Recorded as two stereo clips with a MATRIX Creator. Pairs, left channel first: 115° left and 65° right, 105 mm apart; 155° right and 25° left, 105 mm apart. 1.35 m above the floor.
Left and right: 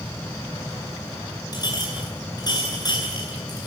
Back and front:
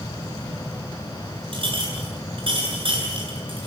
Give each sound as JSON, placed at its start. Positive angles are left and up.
{"t": 1.5, "sound": "a clink", "azimuth_deg": 60, "distance_m": 10.0}